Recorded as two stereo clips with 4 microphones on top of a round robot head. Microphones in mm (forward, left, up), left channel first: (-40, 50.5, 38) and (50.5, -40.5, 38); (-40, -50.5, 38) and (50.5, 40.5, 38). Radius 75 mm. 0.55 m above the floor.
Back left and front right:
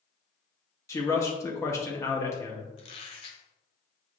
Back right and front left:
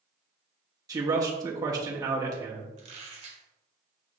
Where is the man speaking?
85° left, 0.7 m.